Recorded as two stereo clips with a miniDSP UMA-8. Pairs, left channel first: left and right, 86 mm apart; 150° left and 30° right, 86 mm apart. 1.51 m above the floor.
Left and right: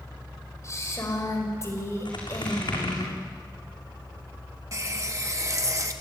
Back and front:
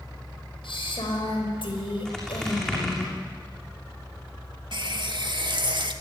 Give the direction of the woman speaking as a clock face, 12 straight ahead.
7 o'clock.